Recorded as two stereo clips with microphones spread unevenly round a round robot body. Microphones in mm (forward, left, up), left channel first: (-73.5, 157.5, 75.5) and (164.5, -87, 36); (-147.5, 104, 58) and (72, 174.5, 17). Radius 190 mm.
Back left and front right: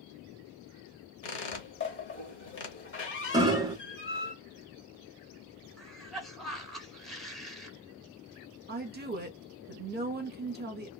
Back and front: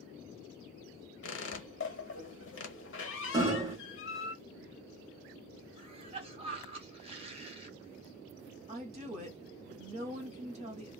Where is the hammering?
Straight ahead, 0.9 m.